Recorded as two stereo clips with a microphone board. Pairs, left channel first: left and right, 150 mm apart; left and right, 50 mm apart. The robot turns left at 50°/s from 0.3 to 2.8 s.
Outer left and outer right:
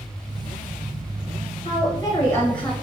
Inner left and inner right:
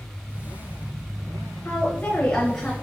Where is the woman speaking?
60° left, 1.2 m; by 2.7 s 5° left, 1.2 m.